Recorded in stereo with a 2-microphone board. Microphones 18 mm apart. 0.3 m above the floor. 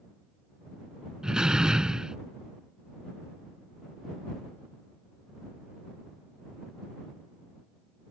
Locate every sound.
1.2 s a door slam: 50° right (ahead or behind)